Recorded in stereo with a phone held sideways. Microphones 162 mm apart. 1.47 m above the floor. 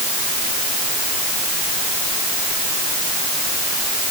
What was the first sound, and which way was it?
Only background noise.